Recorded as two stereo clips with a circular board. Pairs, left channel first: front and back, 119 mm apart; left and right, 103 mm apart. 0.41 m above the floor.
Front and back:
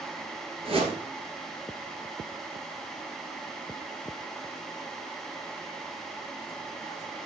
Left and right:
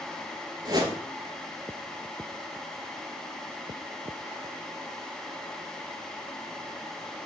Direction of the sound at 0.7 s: 140° right.